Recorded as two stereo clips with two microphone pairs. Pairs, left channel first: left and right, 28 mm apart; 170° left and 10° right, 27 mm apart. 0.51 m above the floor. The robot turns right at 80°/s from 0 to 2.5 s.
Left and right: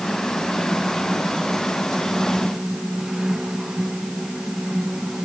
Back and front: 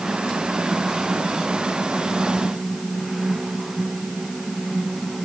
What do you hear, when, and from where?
Only background noise.